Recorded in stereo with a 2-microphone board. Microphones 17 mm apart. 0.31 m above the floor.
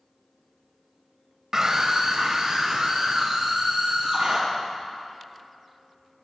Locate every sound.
1.5 s a scream: 35° right (ahead or behind), 1.1 m; by 4.4 s 60° right (ahead or behind), 4.5 m